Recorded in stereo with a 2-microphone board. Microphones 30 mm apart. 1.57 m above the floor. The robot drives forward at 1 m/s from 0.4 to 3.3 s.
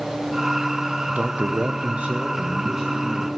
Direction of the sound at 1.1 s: 50° right (ahead or behind).